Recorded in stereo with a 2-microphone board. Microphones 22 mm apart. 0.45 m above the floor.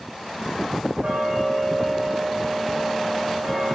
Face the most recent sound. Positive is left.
turn(degrees=-90)